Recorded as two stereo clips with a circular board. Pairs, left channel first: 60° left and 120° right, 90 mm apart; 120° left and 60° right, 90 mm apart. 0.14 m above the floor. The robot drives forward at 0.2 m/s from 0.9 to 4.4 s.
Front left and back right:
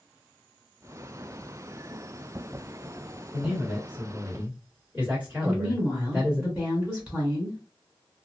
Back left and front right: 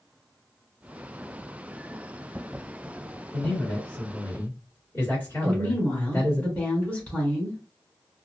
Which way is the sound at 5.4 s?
Straight behind.